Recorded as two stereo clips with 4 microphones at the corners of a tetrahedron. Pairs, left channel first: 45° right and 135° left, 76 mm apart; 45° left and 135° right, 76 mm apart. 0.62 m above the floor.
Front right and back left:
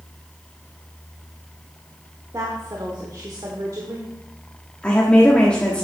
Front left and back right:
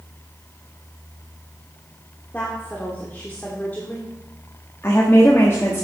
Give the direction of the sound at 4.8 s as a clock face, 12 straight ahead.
11 o'clock.